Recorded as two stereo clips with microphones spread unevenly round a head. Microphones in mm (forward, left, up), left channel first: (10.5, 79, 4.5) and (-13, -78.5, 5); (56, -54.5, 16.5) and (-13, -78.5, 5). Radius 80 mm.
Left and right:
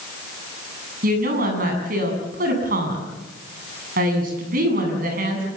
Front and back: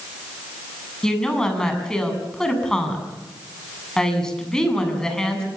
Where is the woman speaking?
60° right, 7.5 m.